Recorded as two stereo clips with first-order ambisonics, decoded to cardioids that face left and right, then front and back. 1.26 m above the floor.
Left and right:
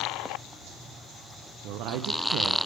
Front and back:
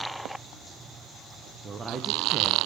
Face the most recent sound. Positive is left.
turn(degrees=-110)